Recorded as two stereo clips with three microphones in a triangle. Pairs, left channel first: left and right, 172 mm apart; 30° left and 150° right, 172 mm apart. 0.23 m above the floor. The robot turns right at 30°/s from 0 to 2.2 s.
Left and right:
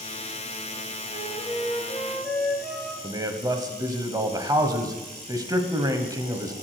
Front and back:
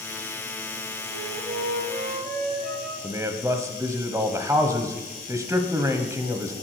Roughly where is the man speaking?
Right.